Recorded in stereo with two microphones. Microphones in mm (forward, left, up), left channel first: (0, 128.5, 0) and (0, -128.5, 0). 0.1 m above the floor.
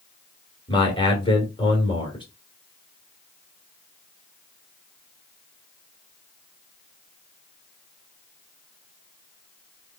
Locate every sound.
0.7 s a man speaking: 20° left (ahead or behind), 1.9 m